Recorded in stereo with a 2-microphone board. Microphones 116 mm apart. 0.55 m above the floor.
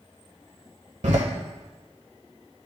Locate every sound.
1.0 s a door slam: 75° right (ahead or behind), 1.3 m